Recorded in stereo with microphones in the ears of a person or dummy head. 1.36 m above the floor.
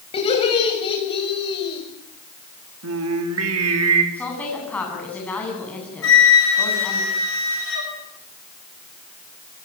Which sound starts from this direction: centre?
A woman speaking, at 4.1 s.